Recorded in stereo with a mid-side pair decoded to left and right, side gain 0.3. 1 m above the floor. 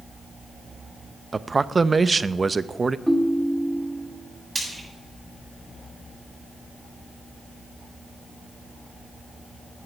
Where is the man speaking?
40° right, 0.6 m.